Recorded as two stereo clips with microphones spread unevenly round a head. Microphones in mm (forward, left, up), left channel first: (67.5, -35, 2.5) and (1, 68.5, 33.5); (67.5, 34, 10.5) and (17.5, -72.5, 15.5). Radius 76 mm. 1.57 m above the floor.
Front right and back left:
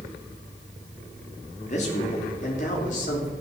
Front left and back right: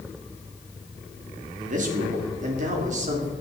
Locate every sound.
1.6 s a man speaking: 105° right, 3 m; by 3.3 s 95° right, 3.5 m